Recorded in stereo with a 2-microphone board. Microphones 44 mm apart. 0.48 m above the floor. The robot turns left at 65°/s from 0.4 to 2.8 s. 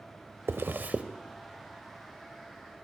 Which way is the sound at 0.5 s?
65° right (ahead or behind).